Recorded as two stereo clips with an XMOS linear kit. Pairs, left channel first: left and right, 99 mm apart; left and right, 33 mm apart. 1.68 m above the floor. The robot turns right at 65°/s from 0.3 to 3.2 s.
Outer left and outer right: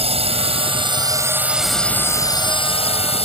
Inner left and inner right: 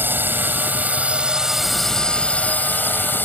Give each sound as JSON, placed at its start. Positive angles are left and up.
{"t": 0.0, "sound": "a drone", "azimuth_deg": -90}